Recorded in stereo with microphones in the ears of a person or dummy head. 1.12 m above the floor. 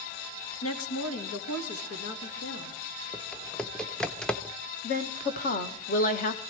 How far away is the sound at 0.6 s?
About 1.1 m.